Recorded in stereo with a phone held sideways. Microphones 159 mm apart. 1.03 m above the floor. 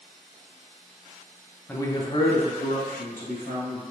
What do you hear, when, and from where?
1.7 s a man speaking: 15° left (ahead or behind), 0.5 m; by 3.8 s 70° left (ahead or behind), 1.7 m